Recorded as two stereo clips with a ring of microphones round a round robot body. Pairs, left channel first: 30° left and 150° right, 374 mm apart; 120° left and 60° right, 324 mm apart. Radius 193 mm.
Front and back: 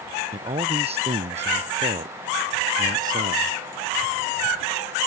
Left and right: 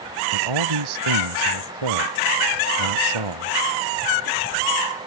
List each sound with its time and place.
0.3 s a man speaking: 75° right; by 3.6 s 80° right